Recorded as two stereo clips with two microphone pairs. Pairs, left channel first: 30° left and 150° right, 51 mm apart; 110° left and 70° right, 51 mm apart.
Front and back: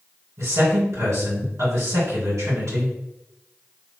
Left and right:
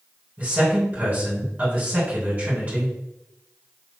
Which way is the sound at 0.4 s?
125° right.